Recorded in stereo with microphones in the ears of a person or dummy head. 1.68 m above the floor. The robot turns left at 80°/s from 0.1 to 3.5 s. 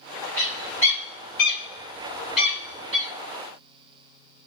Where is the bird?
15° left (ahead or behind), 1.8 m; by 3.1 s 40° right (ahead or behind), 1.8 m.